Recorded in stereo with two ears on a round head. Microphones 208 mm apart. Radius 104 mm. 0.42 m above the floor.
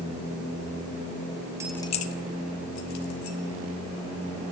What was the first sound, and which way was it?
Keys jangling, 15° right (ahead or behind).